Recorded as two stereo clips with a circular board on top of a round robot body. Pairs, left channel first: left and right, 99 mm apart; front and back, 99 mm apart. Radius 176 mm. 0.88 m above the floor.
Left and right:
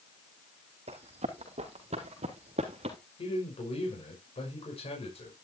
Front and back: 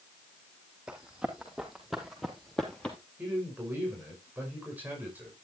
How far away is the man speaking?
About 6 m.